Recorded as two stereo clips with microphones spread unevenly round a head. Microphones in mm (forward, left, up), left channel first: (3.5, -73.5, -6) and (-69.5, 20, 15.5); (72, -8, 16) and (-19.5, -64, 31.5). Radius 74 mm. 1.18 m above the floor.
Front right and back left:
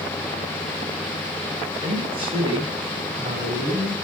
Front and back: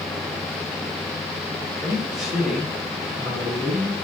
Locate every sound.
1.8 s a man speaking: 170° left, 9 m; by 3.9 s straight behind, 10 m